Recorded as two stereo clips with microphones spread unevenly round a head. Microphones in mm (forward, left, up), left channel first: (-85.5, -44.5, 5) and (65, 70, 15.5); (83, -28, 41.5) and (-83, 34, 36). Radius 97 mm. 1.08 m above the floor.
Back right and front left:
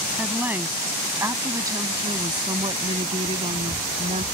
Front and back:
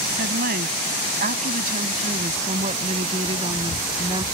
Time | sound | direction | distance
0.2 | a woman speaking | 120° left | ?